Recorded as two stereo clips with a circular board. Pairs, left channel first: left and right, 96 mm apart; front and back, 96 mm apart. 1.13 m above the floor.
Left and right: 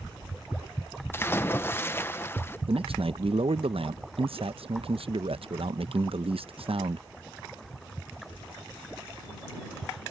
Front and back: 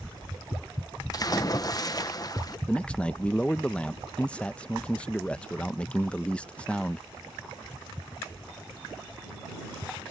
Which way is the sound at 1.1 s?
30° left.